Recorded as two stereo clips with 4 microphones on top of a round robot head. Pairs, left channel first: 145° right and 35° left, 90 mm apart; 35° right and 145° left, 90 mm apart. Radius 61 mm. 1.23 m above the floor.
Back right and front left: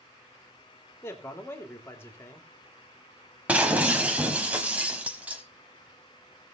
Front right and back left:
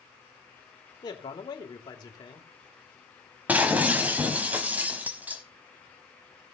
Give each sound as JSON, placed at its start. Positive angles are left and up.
{"t": 1.0, "sound": "a man speaking", "azimuth_deg": -80, "distance_m": 2.5}
{"t": 3.5, "sound": "breaking glass", "azimuth_deg": 90, "distance_m": 1.1}